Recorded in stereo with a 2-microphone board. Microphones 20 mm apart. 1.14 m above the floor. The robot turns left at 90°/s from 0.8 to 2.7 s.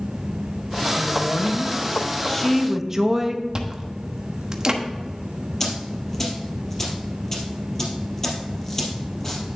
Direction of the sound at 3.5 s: 30° right (ahead or behind).